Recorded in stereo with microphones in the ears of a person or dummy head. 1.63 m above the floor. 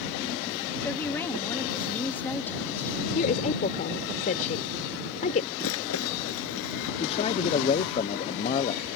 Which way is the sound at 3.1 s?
40° left (ahead or behind).